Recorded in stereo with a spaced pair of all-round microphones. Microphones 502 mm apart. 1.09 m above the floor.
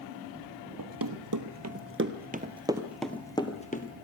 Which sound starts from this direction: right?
Running footsteps, at 0.8 s.